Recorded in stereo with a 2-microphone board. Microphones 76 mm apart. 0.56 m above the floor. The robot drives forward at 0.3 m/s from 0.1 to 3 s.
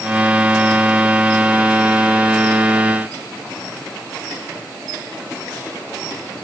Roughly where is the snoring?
No snoring in this recording.